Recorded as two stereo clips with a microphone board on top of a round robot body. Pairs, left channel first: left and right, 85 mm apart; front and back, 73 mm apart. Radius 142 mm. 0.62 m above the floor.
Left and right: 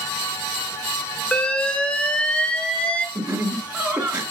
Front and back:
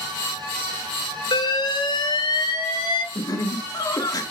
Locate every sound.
1.3 s an alarm: 10° left, 1.5 m
3.1 s laughter: 20° right, 2.5 m